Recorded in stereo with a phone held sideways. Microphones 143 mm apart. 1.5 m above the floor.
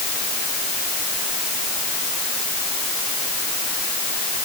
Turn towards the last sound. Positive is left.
No sound to turn to.